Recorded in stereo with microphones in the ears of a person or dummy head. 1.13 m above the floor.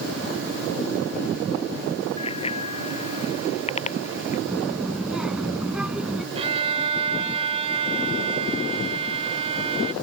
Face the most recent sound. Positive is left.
turn(degrees=-35)  # may be behind; listen again after turning